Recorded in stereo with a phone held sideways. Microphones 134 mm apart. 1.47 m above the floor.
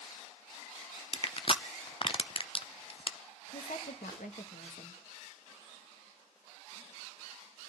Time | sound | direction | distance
1.1 | crushing | 40° left (ahead or behind) | 0.6 m
3.5 | a woman speaking | 80° left | 1.7 m